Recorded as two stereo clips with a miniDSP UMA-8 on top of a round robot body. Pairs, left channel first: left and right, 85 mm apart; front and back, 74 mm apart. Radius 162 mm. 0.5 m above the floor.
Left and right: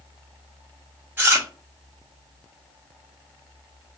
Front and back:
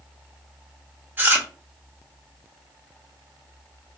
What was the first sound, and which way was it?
Chewing, 135° right.